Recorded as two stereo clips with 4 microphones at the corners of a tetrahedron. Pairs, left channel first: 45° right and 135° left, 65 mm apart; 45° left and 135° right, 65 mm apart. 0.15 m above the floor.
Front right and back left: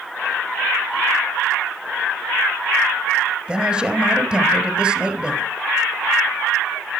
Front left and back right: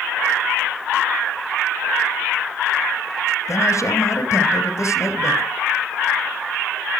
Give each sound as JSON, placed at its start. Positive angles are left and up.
{"t": 3.5, "sound": "a man speaking", "azimuth_deg": 65, "distance_m": 1.8}